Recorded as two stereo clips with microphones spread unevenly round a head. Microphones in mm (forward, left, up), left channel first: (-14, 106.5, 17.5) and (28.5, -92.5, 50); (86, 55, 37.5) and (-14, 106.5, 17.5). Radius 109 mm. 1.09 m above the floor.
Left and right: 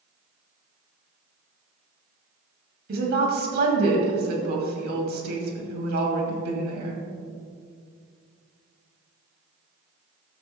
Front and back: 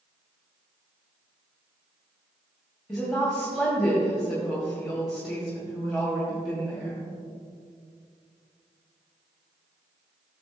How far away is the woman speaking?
About 2.5 m.